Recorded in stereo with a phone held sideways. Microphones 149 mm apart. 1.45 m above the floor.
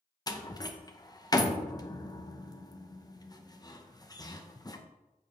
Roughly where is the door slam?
Left.